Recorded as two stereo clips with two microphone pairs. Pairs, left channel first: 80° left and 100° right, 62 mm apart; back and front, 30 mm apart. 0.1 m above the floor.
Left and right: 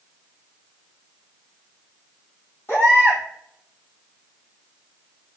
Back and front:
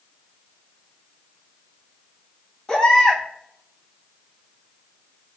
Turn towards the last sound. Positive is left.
turn(degrees=115)